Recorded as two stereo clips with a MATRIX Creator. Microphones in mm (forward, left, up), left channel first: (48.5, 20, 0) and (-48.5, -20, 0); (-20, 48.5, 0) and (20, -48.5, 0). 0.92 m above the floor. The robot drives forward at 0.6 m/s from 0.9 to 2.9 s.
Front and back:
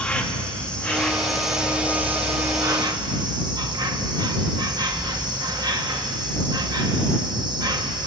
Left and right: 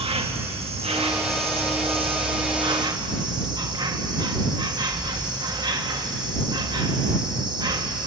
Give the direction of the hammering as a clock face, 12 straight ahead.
No hammering in this recording.